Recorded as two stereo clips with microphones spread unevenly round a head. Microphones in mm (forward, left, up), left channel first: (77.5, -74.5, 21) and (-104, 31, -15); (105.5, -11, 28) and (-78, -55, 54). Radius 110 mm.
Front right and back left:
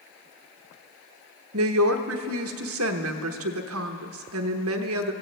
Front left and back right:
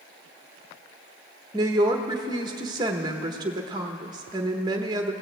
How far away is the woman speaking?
About 0.9 m.